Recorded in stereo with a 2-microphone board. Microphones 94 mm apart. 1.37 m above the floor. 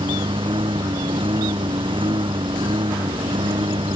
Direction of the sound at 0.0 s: 75° right (ahead or behind).